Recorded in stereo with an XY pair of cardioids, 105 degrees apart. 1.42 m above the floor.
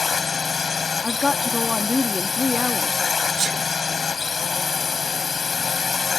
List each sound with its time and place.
0.0 s a drone: 30° left
1.0 s a woman speaking: 20° left
3.4 s a sneeze: 55° right